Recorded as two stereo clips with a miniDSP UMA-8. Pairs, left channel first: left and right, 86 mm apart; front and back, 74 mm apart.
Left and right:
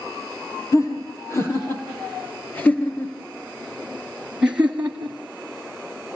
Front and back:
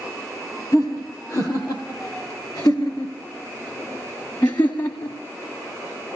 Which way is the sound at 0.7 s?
40° left.